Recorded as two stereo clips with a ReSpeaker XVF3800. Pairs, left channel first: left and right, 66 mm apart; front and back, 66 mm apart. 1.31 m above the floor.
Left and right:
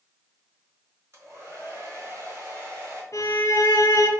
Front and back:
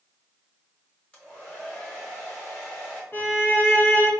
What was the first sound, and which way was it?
A hair dryer, 65° right.